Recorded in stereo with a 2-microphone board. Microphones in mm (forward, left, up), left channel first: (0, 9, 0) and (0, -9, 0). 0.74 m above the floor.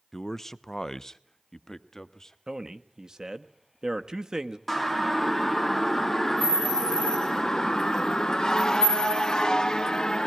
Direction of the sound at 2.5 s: 40° right (ahead or behind).